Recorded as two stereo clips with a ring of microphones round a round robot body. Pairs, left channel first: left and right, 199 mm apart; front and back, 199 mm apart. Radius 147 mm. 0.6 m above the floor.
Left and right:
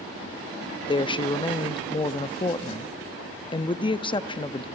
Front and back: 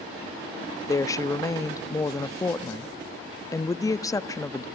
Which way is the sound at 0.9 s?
55° left.